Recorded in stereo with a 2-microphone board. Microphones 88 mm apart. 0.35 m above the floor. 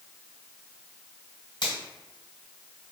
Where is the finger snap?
55° left (ahead or behind), 1.8 m.